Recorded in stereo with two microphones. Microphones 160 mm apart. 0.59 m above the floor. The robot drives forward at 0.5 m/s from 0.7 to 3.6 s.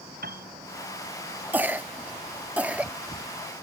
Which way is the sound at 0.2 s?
75° right (ahead or behind).